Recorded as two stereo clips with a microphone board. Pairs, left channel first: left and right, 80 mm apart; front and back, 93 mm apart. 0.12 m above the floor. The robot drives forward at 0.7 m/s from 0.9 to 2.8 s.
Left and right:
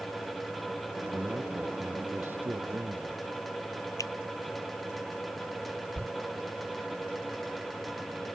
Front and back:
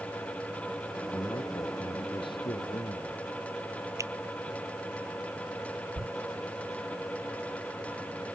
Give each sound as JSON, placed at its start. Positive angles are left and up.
{"t": 1.1, "sound": "a man speaking", "azimuth_deg": -25}
{"t": 4.0, "sound": "a finger snap", "azimuth_deg": 130}
{"t": 6.0, "sound": "a thud", "azimuth_deg": 155}